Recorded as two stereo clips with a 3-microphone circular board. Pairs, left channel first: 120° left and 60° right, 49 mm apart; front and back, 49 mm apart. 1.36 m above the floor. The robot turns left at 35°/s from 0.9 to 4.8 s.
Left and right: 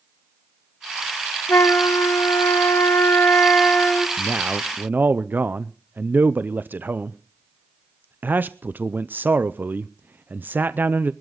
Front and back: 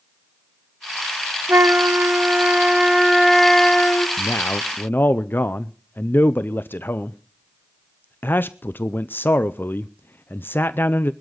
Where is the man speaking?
5° right, 0.6 m; by 11.1 s 25° right, 0.6 m.